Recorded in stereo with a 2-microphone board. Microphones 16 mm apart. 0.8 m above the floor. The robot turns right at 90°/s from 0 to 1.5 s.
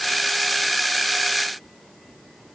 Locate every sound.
Only background noise.